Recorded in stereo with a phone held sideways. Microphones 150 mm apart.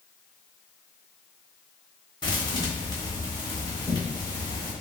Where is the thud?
30° left (ahead or behind), 1.2 m.